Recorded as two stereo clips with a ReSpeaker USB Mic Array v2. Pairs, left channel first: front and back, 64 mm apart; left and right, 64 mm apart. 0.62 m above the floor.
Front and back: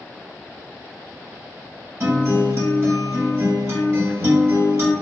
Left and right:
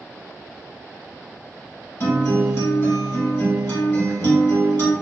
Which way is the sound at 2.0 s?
135° left.